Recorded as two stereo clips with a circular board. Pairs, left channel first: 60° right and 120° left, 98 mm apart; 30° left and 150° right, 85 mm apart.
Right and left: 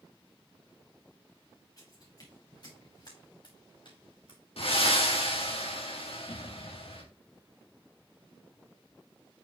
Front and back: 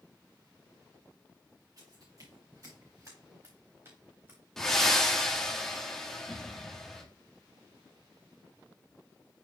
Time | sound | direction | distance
1.8 | footsteps | 110° right | 4.5 m
4.6 | breathing | 55° right | 1.7 m